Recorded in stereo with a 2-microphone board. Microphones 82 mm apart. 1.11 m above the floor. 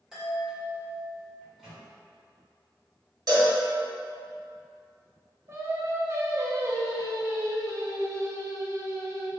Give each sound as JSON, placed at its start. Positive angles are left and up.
{"t": 0.1, "sound": "a chime", "side_deg": -5, "distance_m": 1.5}
{"t": 1.4, "sound": "a microwave", "side_deg": -10, "distance_m": 1.8}
{"t": 3.3, "sound": "a cowbell", "side_deg": -50, "distance_m": 1.5}
{"t": 5.5, "sound": "singing", "side_deg": -35, "distance_m": 0.6}